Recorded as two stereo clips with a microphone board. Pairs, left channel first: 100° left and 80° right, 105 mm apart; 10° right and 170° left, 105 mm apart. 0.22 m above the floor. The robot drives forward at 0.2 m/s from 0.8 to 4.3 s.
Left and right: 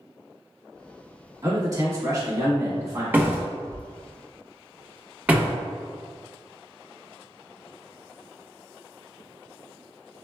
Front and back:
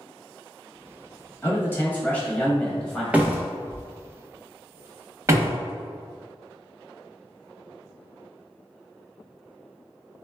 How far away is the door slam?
About 0.8 m.